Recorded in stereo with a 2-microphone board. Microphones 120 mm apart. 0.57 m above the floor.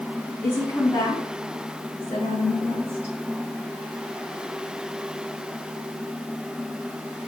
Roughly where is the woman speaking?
Left.